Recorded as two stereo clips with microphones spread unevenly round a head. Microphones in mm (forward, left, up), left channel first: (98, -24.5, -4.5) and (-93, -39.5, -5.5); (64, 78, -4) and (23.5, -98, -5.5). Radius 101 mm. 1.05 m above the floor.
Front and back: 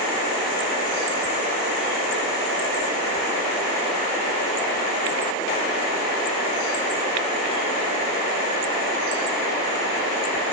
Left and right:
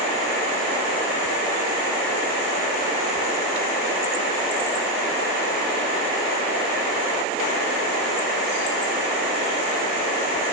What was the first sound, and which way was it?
Only background noise.